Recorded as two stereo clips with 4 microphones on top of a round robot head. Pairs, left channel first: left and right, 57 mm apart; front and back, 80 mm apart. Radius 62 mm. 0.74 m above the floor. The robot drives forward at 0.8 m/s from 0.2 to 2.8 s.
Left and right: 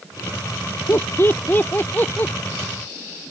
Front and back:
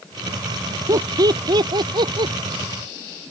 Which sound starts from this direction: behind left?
Laughter, at 0.9 s.